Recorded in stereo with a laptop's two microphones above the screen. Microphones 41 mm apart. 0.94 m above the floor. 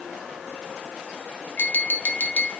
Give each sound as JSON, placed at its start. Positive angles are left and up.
{"t": 1.6, "sound": "tapping", "side_deg": 45, "distance_m": 0.5}